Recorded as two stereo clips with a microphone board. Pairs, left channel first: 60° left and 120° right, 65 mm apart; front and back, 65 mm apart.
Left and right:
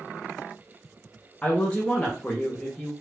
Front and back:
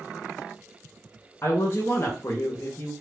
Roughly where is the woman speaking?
Ahead.